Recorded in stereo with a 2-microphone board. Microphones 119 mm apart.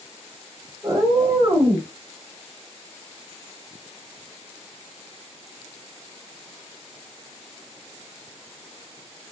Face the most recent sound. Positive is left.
turn(degrees=-25)  # may be behind; listen again after turning